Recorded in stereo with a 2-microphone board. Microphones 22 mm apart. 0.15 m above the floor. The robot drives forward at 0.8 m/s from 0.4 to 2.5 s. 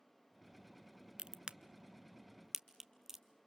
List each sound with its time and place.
1.2 s a crack: 50° right (ahead or behind), 0.5 m; by 3.2 s 20° right (ahead or behind), 1.2 m